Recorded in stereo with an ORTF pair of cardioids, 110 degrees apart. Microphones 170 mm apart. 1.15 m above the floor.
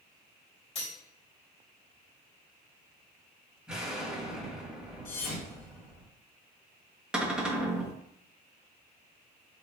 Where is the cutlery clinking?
35° left, 1.9 m.